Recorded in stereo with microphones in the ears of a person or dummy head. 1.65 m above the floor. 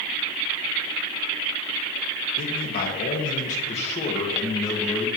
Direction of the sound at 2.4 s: 60° left (ahead or behind).